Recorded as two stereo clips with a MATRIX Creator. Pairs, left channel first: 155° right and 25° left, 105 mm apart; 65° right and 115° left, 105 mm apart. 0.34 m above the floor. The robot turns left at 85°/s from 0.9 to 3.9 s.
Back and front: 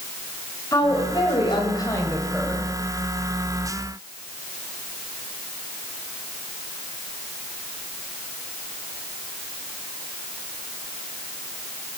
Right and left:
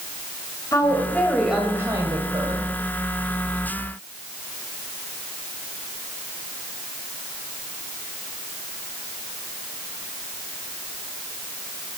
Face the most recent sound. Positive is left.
turn(degrees=-10)